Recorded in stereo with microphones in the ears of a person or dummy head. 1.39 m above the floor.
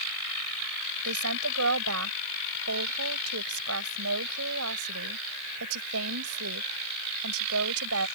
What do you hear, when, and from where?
1.1 s a woman speaking: 85° right